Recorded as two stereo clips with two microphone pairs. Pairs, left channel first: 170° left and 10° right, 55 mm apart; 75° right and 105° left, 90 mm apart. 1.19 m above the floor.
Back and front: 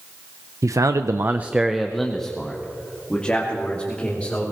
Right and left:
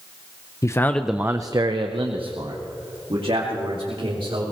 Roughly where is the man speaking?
Ahead right.